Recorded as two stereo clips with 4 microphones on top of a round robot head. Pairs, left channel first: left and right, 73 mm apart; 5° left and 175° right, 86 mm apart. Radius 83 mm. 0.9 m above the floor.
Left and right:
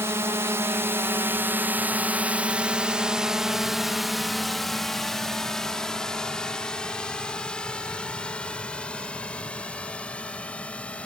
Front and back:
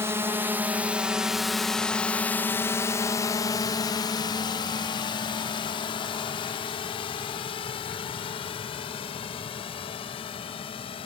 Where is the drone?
130° right; by 11.1 s 15° left.